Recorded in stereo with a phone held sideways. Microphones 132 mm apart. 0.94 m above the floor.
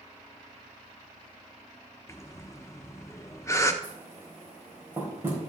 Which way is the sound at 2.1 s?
20° left (ahead or behind).